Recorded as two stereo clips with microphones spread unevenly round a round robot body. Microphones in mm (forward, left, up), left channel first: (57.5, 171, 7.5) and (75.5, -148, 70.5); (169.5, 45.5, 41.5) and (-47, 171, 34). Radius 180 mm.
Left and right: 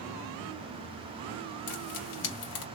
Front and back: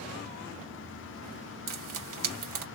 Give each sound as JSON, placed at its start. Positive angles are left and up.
{"t": 1.7, "sound": "frying", "azimuth_deg": 155, "distance_m": 2.5}